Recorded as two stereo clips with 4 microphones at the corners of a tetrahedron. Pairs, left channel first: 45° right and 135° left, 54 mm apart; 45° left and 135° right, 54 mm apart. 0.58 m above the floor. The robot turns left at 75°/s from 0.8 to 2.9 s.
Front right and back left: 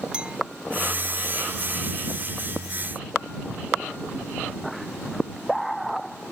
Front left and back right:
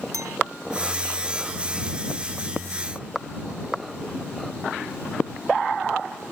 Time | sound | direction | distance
0.1 | a clink | 155° right | ?